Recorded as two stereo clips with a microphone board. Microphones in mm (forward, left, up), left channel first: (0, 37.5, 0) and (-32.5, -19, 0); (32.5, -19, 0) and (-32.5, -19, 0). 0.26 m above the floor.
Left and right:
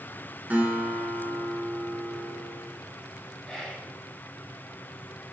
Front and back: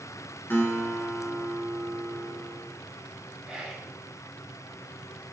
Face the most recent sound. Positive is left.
turn(degrees=130)